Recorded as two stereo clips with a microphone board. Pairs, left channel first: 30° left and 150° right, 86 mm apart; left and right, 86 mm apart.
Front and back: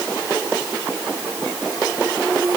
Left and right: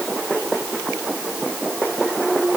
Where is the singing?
No singing in this recording.